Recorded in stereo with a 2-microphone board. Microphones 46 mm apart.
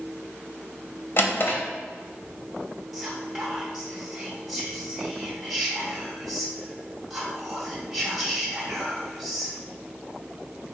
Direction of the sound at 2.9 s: 5° right (ahead or behind).